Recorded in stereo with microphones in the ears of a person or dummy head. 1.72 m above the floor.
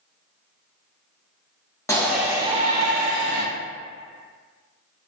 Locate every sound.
1.9 s a shout: 10° left (ahead or behind), 0.7 m; by 3.4 s 85° right, 0.9 m